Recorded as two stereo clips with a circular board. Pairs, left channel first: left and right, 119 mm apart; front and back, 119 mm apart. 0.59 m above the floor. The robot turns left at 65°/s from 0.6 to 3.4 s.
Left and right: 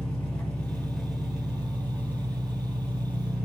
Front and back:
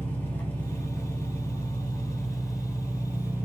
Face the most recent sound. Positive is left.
turn(degrees=-155)